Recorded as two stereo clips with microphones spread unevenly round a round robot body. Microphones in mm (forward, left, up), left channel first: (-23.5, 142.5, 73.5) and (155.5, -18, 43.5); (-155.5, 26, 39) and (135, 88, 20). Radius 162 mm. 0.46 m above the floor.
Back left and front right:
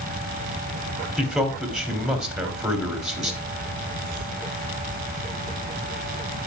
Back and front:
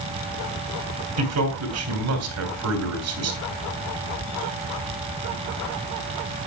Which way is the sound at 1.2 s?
45° left.